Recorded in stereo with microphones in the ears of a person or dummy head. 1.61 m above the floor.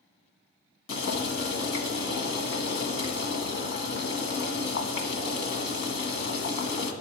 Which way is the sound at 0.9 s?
65° left (ahead or behind).